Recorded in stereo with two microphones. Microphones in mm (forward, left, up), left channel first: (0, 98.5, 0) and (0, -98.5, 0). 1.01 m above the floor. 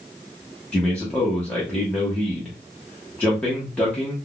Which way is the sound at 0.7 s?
5° left (ahead or behind).